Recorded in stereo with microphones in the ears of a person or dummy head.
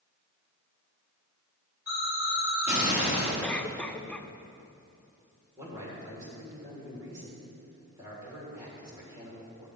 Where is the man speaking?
20° right (ahead or behind), 4 m.